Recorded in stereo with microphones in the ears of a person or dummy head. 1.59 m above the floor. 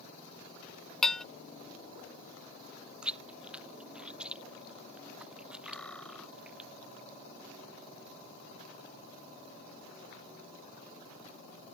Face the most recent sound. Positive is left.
turn(degrees=10)  # may be behind; listen again after turning